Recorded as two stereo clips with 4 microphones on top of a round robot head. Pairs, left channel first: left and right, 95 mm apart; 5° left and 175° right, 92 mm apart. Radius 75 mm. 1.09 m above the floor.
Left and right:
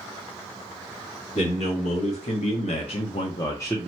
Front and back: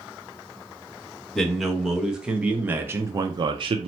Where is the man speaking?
95° left, 1.4 m; by 3.9 s 170° left, 0.5 m.